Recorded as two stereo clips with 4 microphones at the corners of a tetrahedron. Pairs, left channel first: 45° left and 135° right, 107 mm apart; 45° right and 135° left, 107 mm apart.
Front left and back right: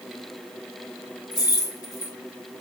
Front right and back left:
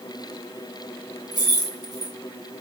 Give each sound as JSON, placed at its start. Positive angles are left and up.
{"t": 1.3, "sound": "keys jangling", "azimuth_deg": 90, "distance_m": 1.4}